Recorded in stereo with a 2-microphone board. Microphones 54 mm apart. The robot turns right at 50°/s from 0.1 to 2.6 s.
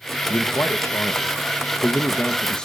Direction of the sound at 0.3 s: 45° left.